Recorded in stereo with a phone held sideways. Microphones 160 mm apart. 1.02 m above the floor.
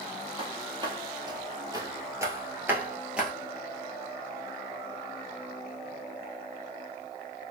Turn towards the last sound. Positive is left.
turn(degrees=-5)  # may be behind; listen again after turning